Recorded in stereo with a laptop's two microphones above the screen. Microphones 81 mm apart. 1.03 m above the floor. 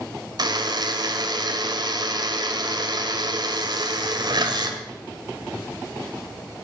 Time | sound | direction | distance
0.4 | a buzzer | 60° right (ahead or behind) | 1.9 m